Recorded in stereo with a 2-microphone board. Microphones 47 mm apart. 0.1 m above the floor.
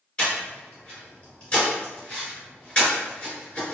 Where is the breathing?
20° left (ahead or behind), 1.8 m.